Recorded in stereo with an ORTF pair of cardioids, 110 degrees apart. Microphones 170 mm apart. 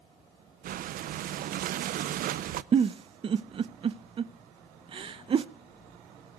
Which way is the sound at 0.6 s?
60° right.